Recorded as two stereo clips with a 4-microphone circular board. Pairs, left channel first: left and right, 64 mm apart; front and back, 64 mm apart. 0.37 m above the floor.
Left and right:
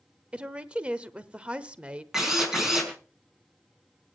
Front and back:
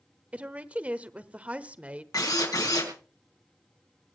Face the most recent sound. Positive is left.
turn(degrees=-5)